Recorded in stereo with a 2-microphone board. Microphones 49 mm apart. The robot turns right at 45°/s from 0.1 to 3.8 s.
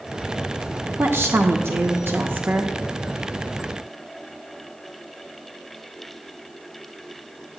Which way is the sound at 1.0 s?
120° right.